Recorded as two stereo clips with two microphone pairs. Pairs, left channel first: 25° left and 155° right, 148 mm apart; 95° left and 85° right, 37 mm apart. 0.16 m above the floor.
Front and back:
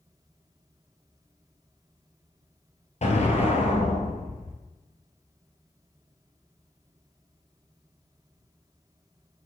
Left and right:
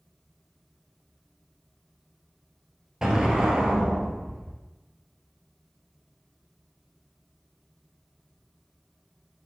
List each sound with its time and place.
3.0 s an explosion: 10° right, 1.3 m